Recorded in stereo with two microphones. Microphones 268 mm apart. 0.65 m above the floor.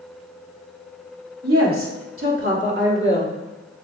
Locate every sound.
1.4 s a woman speaking: 60° right (ahead or behind), 2 m; by 3.3 s 35° right (ahead or behind), 2.0 m